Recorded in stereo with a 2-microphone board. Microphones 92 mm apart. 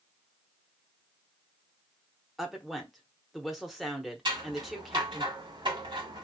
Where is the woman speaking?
5° right (ahead or behind), 0.8 m.